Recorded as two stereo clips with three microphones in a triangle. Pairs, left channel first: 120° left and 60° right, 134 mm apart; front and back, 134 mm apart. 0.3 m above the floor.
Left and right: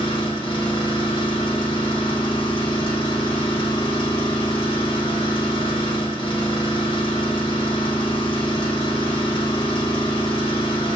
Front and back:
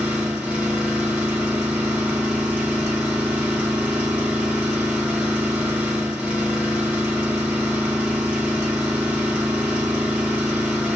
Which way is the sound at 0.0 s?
105° left.